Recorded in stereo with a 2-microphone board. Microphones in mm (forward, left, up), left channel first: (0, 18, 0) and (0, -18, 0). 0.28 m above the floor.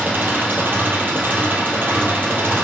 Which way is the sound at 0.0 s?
65° right (ahead or behind).